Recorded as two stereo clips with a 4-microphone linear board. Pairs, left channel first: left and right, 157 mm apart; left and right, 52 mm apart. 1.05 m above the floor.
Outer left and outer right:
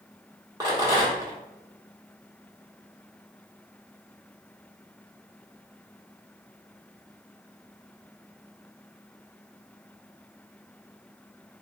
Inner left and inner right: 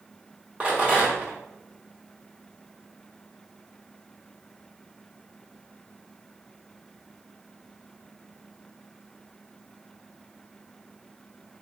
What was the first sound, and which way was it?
A rattle, 25° right (ahead or behind).